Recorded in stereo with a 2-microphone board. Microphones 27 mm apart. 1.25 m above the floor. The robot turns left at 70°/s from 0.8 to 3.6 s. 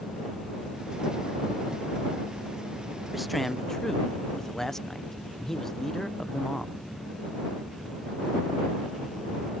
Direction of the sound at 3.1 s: 165° right.